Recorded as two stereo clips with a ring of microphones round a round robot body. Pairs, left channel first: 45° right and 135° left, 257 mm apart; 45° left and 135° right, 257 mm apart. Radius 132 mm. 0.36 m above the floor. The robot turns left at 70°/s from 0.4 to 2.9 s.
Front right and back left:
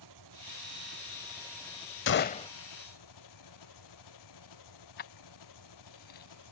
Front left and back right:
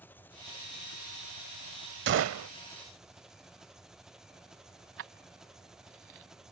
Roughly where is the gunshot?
Right.